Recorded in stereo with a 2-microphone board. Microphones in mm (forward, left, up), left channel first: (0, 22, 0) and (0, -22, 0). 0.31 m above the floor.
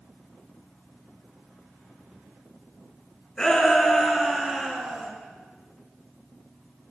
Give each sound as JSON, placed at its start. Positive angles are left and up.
{"t": 3.4, "sound": "a shout", "side_deg": 15, "distance_m": 3.0}